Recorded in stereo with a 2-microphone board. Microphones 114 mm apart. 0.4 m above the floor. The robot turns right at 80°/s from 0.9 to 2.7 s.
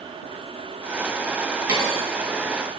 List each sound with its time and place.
1.7 s a dropped coin: 35° right (ahead or behind), 1.6 m; by 2.0 s 65° right (ahead or behind), 1.6 m